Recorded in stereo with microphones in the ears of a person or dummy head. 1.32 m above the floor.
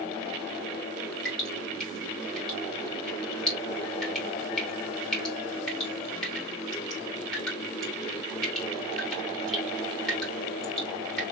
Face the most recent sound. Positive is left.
turn(degrees=0)  # may be behind; listen again after turning